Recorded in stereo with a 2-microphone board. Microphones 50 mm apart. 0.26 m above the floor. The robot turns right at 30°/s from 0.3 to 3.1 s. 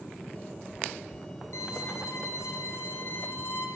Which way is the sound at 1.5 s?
80° left.